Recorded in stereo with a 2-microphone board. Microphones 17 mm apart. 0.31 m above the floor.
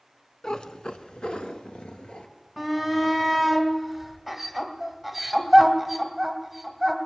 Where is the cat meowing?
45° left (ahead or behind), 0.8 m; by 2.3 s 85° left, 1.7 m.